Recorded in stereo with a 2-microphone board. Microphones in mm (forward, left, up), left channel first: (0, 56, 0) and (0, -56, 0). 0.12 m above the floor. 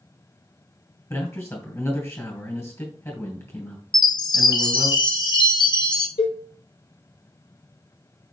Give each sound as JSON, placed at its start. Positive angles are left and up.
{"t": 1.1, "sound": "a man speaking", "side_deg": 25, "distance_m": 2.5}
{"t": 3.9, "sound": "a chime", "side_deg": 40, "distance_m": 0.6}
{"t": 6.2, "sound": "a cowbell", "side_deg": 60, "distance_m": 1.3}